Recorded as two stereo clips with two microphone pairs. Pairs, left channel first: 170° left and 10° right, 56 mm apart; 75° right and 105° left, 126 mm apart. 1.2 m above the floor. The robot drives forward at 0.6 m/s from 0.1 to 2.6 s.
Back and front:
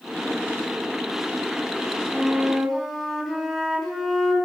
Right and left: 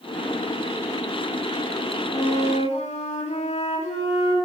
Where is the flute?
95° right, 4.5 m; by 4.4 s 100° right, 4.5 m.